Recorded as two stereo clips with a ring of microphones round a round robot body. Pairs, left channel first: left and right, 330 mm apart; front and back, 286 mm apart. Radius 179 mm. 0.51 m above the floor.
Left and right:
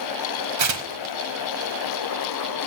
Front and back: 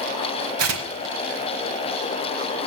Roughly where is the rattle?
I don't hear a rattle.